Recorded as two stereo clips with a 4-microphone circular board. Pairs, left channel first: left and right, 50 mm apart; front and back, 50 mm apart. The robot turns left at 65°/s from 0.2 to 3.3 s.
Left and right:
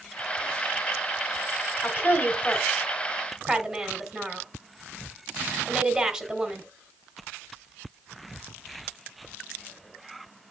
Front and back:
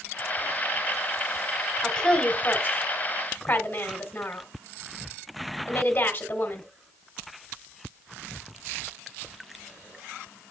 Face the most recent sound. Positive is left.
turn(degrees=-25)